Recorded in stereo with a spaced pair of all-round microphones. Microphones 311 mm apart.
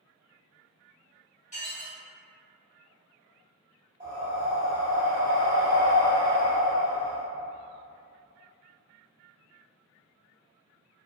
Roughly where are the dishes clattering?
Left.